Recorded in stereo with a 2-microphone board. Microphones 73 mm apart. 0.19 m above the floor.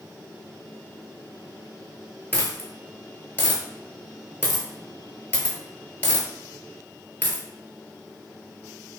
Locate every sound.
2.3 s a dropped coin: 25° left (ahead or behind), 0.6 m